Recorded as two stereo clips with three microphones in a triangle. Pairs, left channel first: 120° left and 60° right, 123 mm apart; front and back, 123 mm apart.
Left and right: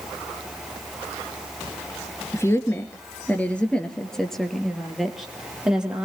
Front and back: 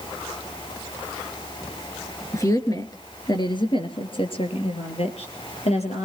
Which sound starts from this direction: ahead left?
A woman speaking, at 2.3 s.